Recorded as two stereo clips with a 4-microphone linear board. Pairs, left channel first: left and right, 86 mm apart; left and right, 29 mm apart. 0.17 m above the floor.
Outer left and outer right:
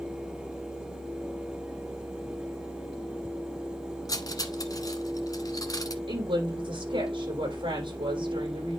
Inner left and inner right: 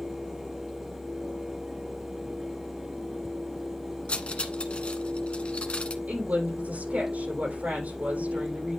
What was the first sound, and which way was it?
Cutlery clinking, 45° left (ahead or behind).